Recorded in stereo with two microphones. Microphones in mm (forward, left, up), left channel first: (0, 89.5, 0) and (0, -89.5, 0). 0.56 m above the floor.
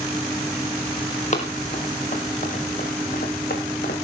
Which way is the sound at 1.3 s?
40° left (ahead or behind).